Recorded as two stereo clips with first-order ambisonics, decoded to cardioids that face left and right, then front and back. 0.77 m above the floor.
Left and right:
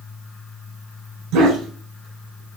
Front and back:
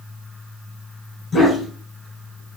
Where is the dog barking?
75° right, 1.7 m; by 2.6 s 100° right, 2 m.